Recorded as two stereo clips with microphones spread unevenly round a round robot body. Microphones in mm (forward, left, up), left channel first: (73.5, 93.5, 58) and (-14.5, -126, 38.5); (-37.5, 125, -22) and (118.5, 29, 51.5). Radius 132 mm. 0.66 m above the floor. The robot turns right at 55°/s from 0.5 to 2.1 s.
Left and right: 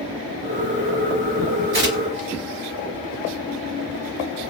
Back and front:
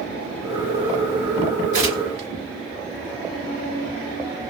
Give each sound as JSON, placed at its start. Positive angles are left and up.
{"t": 1.7, "sound": "tearing paper", "azimuth_deg": -75, "distance_m": 1.1}